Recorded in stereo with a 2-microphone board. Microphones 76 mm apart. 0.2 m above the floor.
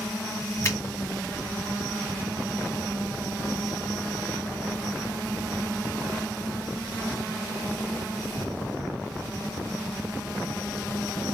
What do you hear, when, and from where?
0.6 s a finger snap: 35° left (ahead or behind), 2.5 m